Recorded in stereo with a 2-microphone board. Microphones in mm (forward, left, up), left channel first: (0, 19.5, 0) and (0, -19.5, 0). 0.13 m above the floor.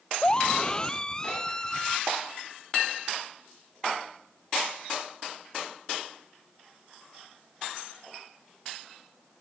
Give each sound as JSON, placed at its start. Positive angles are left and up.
{"t": 0.2, "sound": "a scream", "side_deg": 25}